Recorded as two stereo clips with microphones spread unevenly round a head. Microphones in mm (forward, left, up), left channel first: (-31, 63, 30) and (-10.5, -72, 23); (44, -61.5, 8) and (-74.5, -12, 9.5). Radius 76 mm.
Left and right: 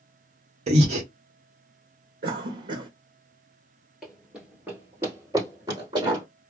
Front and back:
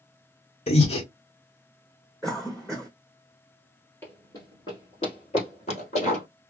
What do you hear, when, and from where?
0.7 s breathing: 50° right, 1.1 m
2.2 s a cough: 110° right, 0.7 m
4.0 s running footsteps: 15° left, 1.2 m; by 6.2 s 25° right, 1.9 m